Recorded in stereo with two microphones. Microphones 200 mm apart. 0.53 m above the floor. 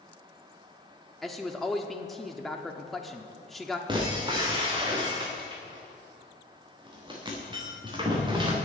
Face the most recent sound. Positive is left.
turn(degrees=-25)  # may be behind; listen again after turning